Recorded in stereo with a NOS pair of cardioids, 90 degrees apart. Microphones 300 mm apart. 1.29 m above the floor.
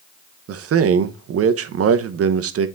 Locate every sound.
0.5 s a man speaking: 50° right, 0.9 m